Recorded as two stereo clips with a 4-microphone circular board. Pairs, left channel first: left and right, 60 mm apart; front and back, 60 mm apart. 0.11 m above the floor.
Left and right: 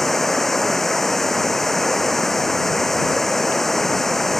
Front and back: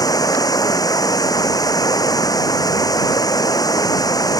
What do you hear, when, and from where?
0.0 s running water: 5° left